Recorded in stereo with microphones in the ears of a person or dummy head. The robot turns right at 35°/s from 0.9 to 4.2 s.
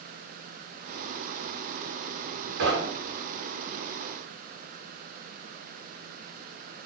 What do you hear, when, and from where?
2.6 s knocking: 55° right (ahead or behind), 0.8 m; by 3.2 s 70° right (ahead or behind), 0.8 m